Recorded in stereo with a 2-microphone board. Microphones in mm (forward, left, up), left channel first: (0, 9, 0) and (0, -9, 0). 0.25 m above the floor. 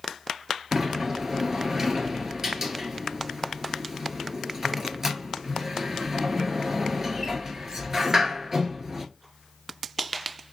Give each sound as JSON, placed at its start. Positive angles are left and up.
{"t": 0.7, "sound": "a sliding door", "side_deg": -20, "distance_m": 1.3}